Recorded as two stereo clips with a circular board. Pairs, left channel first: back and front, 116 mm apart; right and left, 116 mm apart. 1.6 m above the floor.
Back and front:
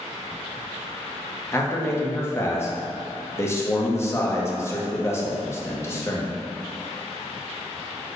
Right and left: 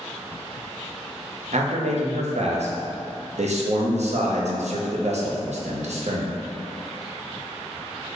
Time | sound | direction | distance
1.5 | a man speaking | 110° left | 0.6 m